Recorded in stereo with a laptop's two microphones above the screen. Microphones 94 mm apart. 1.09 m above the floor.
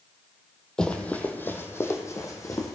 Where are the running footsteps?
10° left (ahead or behind), 1.5 m; by 2.8 s 40° left (ahead or behind), 2.5 m.